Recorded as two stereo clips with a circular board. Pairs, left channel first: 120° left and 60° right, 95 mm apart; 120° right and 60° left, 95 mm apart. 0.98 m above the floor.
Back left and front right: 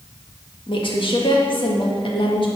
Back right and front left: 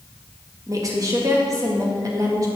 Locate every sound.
0.7 s a woman speaking: 110° left, 1.5 m